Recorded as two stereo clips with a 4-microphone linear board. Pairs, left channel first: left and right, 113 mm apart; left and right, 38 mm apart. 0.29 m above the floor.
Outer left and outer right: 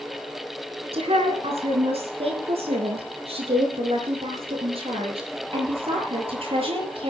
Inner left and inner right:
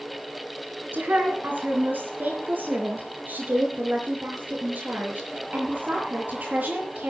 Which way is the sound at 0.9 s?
65° right (ahead or behind).